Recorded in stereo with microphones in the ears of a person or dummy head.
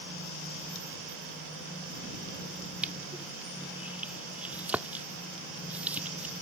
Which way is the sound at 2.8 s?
10° right (ahead or behind).